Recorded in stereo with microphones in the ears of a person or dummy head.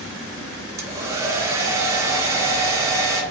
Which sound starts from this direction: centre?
A hair dryer, at 0.8 s.